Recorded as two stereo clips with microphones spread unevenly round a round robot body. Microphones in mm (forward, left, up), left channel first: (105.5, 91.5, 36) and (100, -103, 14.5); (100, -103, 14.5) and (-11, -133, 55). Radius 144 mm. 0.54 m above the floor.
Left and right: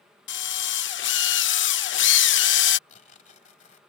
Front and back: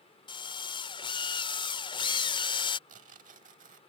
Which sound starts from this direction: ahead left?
A drill, at 0.3 s.